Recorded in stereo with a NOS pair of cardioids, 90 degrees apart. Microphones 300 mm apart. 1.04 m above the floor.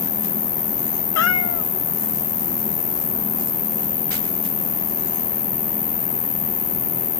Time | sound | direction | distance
0.0 | an insect | 65° left | ?
1.1 | a cat meowing | 60° left | ?